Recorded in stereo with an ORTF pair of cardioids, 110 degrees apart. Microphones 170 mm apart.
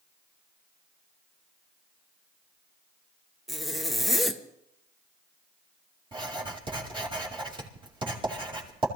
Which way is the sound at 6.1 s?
30° right.